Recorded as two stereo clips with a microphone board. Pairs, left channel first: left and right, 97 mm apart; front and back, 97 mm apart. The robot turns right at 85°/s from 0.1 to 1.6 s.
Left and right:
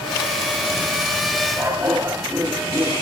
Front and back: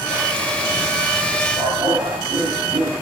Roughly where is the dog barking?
Behind right.